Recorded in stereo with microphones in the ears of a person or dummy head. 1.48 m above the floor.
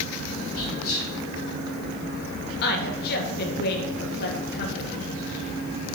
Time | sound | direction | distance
0.6 | whispering | 80° left | 3.5 m
2.6 | a woman speaking | 60° left (ahead or behind) | 1.6 m